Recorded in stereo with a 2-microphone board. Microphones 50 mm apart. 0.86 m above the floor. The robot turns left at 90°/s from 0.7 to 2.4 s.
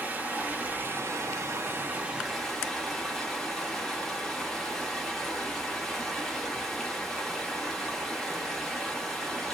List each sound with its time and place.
0.0 s running water: 35° right, 1.0 m; by 9.5 s 175° left, 1.0 m